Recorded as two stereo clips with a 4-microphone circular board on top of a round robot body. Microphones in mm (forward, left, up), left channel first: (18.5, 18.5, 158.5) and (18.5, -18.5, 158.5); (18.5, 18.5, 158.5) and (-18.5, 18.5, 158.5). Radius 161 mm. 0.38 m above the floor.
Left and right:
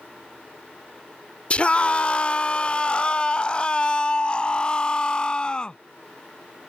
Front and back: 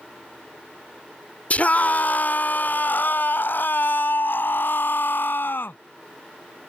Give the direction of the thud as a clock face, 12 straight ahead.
I don't hear a thud.